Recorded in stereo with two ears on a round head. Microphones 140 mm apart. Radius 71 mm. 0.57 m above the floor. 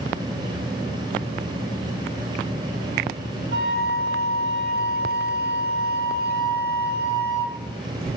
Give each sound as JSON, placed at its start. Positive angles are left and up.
{"t": 3.5, "sound": "a flute", "side_deg": -85, "distance_m": 3.0}